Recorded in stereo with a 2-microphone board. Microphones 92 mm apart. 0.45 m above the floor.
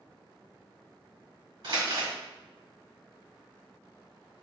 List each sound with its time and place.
1.6 s crumpling: 60° right (ahead or behind), 1.5 m